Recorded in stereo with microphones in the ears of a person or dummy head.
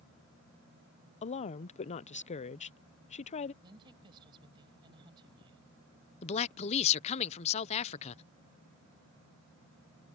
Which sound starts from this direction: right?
A woman speaking, at 3.6 s.